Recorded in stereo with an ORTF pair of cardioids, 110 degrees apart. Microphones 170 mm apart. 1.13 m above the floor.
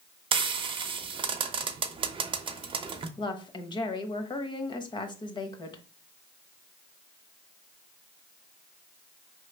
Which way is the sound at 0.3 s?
30° right.